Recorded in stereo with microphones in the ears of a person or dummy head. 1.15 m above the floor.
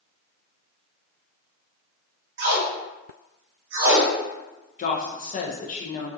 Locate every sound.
2.4 s tape being pulled: 60° right (ahead or behind), 0.7 m
4.8 s a woman speaking: 40° left (ahead or behind), 0.5 m